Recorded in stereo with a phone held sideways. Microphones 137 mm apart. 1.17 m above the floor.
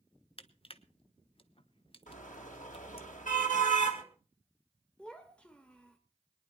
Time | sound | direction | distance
0.4 | crushing | 40° left (ahead or behind) | 0.9 m
2.1 | a car horn | 70° left (ahead or behind) | 3 m
5.0 | a child speaking | 10° left (ahead or behind) | 1.0 m